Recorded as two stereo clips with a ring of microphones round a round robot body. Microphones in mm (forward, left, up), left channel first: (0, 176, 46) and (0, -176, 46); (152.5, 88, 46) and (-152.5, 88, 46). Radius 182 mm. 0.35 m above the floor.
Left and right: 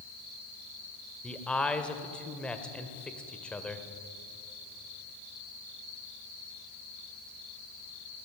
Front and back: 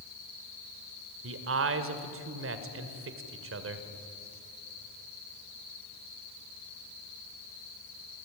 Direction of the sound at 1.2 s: 175° left.